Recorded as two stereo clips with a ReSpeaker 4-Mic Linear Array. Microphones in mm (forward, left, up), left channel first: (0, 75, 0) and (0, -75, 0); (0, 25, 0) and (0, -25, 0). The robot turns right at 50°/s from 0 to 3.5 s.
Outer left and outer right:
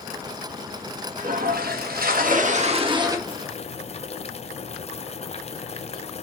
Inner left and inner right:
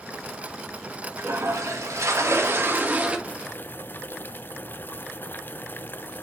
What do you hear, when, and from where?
1.2 s a toilet flushing: 120° right, 1.3 m; by 3.2 s 20° right, 1.3 m
3.3 s boiling: 35° left (ahead or behind), 0.6 m; by 6.2 s 45° left (ahead or behind), 0.6 m